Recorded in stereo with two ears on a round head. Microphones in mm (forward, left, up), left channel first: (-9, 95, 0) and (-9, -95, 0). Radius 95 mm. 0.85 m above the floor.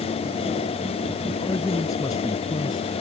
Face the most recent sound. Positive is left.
turn(degrees=20)  # may be behind; listen again after turning